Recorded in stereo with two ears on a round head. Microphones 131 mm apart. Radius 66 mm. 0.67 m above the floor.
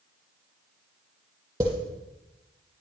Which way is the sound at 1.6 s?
30° right (ahead or behind).